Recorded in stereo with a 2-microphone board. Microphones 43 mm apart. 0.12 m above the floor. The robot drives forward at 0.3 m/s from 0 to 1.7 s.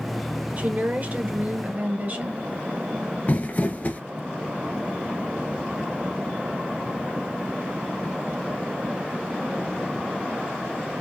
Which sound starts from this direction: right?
A woman speaking, at 0.6 s.